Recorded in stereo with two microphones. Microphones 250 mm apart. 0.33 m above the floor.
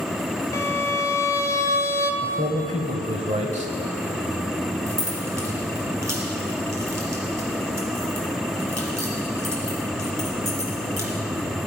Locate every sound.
0.5 s a violin: 10° left (ahead or behind), 0.9 m
2.2 s a man speaking: 25° right (ahead or behind), 1.4 m
4.9 s keys jangling: 80° right, 3 m